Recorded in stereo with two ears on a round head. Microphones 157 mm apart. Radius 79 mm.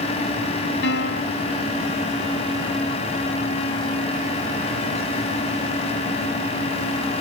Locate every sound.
0.8 s a piano: 75° left (ahead or behind)